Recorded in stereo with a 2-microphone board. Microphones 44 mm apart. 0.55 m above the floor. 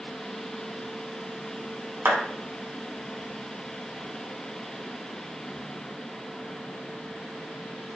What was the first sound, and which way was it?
A clap, 60° right (ahead or behind).